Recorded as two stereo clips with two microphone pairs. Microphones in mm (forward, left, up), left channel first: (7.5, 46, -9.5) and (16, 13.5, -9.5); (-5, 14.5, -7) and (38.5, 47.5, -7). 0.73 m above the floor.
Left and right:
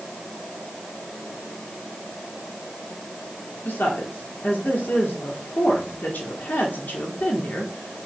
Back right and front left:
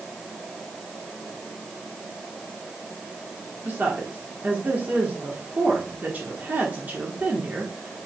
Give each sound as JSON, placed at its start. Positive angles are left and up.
{"t": 3.6, "sound": "a woman speaking", "azimuth_deg": 95, "distance_m": 1.5}